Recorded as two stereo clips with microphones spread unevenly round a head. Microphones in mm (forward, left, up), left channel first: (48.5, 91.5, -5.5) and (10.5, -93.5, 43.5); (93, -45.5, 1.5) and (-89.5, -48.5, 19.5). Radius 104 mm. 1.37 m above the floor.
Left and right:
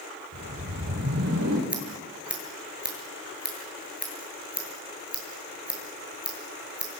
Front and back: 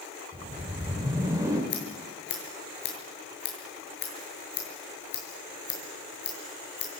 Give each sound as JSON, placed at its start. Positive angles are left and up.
{"t": 0.3, "sound": "a whoosh", "azimuth_deg": -105, "distance_m": 6.0}
{"t": 1.7, "sound": "scissors", "azimuth_deg": -20, "distance_m": 8.0}